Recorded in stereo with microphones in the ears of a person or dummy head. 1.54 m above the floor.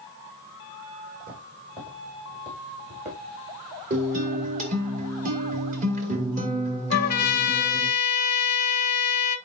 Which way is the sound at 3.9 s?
50° right (ahead or behind).